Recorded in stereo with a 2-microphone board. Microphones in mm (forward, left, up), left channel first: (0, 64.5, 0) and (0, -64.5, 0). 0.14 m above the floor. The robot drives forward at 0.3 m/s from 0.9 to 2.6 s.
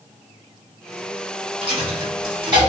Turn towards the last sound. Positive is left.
turn(degrees=-35)  # may be behind; listen again after turning